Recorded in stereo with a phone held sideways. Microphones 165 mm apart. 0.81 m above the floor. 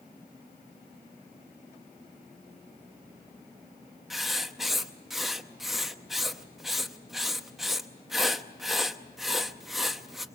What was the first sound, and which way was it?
Writing, centre (ahead or behind).